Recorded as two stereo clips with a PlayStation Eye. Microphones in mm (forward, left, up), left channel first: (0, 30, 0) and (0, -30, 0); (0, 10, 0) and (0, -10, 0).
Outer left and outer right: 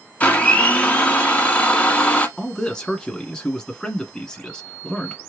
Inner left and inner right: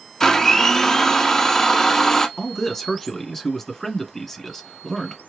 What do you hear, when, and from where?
0.2 s a blender: 25° left (ahead or behind), 1.1 m
2.4 s a man speaking: 10° left (ahead or behind), 1.4 m